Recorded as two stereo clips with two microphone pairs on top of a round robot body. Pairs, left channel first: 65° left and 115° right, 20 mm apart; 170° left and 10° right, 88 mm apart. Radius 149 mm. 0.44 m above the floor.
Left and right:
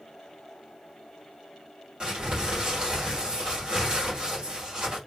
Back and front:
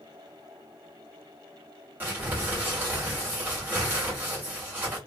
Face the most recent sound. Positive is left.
turn(degrees=-80)